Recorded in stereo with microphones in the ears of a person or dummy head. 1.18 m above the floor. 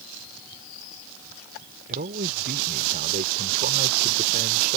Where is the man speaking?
45° right (ahead or behind).